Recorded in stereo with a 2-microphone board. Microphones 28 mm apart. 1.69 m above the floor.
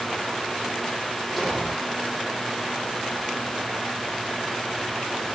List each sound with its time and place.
1.4 s an explosion: 10° left (ahead or behind), 6 m